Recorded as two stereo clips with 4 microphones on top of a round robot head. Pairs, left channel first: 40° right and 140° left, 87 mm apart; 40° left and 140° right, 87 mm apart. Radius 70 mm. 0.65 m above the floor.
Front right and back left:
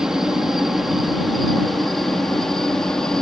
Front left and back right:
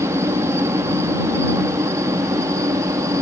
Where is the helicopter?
140° right; by 3.2 s 120° right.